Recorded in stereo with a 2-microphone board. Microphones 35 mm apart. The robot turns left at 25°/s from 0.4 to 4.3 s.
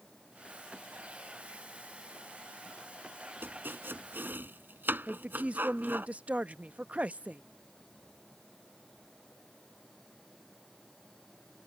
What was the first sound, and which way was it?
Chopping, 90° right.